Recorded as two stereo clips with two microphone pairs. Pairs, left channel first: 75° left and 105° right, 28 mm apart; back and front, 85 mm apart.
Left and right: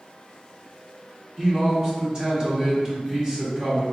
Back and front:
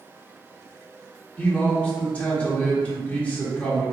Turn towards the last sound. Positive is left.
turn(degrees=-130)